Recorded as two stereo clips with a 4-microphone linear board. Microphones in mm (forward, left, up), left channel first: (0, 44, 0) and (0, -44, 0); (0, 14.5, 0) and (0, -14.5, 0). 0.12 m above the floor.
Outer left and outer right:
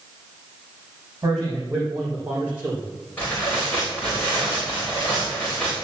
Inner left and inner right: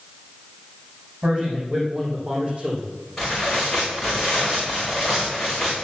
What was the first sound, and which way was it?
A man speaking, 35° right (ahead or behind).